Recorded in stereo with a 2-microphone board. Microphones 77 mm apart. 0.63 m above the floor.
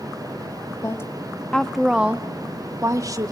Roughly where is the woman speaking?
Left.